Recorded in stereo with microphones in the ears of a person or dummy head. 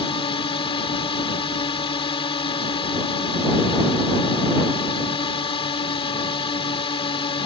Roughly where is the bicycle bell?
I don't hear a bicycle bell.